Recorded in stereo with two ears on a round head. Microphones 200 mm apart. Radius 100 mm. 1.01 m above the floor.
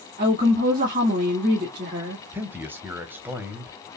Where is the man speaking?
10° right (ahead or behind), 1.0 m.